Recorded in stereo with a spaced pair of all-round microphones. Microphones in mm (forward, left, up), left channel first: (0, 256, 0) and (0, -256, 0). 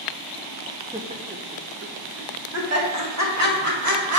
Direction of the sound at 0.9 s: 10° right (ahead or behind).